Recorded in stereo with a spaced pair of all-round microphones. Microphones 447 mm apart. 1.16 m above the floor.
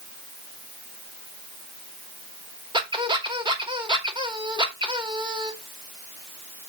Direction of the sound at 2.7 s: 10° right (ahead or behind).